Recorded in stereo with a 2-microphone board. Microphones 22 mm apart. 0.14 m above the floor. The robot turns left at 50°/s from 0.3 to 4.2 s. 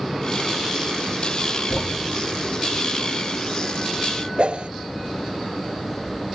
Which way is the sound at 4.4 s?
60° right (ahead or behind).